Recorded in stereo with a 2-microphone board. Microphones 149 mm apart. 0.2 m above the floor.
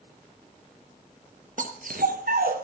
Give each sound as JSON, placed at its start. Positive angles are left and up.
{"t": 1.6, "sound": "a dog barking", "side_deg": -60, "distance_m": 1.6}